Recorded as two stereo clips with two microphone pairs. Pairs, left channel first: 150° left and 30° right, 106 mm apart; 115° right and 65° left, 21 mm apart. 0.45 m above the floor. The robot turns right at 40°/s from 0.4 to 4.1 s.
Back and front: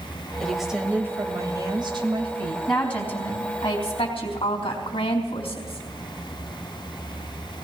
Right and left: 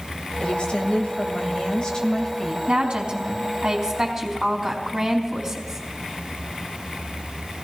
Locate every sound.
0.4 s a woman speaking: 125° right, 2 m; by 2.6 s 35° right, 2 m
2.7 s a woman speaking: 65° left, 3.5 m; by 5.8 s 120° left, 3.5 m